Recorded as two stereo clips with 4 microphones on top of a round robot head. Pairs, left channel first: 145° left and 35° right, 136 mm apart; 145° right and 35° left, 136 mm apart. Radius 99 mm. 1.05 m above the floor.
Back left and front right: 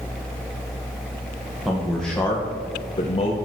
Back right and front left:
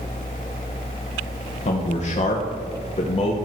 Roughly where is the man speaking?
Behind right.